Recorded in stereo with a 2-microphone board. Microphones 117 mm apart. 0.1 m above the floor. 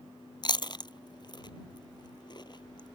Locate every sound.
0.4 s chewing: 40° left (ahead or behind)